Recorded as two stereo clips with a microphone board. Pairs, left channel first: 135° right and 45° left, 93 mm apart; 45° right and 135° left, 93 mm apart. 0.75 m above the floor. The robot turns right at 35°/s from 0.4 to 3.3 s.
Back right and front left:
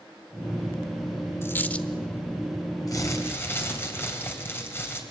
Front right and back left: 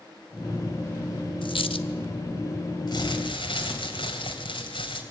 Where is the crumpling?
85° right, 3 m; by 5.0 s 70° right, 3 m.